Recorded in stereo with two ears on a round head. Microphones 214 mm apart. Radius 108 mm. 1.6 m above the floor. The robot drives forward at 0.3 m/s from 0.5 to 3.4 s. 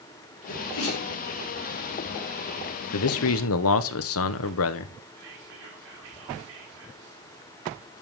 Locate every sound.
0.5 s a sneeze: 60° left (ahead or behind), 5 m; by 1.1 s 65° left (ahead or behind), 5 m
2.9 s a man speaking: 70° left (ahead or behind), 1.0 m; by 4.9 s 65° left (ahead or behind), 1.1 m
5.2 s whispering: 55° right (ahead or behind), 4.5 m